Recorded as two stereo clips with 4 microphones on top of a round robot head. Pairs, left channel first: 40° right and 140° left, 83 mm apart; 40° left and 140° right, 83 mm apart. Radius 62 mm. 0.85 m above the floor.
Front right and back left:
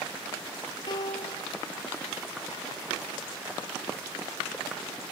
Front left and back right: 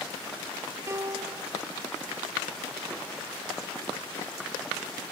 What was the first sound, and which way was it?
A piano, 80° right.